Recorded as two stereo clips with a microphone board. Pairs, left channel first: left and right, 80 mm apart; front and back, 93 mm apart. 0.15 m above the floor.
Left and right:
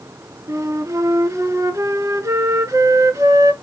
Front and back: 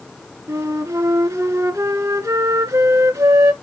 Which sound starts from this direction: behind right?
A flute, at 0.5 s.